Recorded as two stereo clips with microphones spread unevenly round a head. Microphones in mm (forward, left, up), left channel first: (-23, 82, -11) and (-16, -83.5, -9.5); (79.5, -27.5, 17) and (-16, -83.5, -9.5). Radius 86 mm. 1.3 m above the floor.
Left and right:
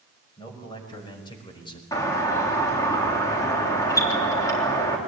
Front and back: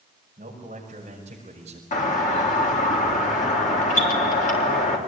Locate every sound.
0.4 s a man speaking: 160° left, 6 m; by 1.8 s 155° left, 5 m
1.9 s a doorbell: 20° left, 3.5 m